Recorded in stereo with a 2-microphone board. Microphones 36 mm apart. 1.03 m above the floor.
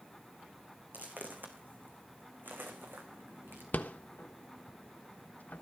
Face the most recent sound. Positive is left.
turn(degrees=55)  # may be behind; listen again after turning